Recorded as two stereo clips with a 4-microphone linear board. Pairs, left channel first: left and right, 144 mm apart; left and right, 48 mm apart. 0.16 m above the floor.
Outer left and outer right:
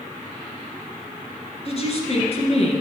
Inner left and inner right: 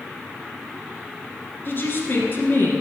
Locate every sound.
1.6 s a woman speaking: 45° left (ahead or behind), 2.5 m